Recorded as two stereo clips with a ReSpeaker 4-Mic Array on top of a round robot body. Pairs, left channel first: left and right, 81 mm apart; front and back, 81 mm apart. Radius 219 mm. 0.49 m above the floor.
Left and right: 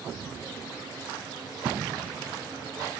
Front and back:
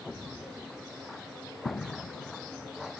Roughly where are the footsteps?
Ahead right.